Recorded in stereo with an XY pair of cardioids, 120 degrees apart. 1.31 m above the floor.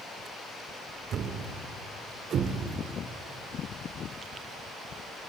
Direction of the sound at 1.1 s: 55° right.